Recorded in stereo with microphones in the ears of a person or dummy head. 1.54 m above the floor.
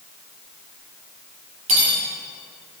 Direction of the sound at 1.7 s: 35° right (ahead or behind).